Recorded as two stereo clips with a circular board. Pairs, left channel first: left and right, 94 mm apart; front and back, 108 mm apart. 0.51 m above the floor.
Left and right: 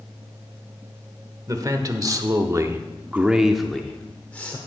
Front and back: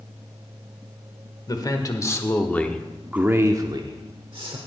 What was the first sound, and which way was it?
A man speaking, 45° right.